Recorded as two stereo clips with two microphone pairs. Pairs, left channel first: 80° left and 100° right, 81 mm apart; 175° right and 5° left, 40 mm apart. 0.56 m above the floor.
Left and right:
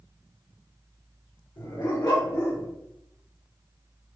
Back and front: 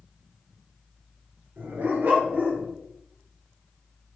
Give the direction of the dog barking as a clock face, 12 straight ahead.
10 o'clock.